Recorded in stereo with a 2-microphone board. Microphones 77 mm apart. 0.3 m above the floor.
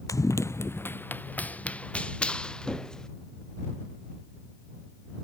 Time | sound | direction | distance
0.1 | running footsteps | 45° left (ahead or behind) | ?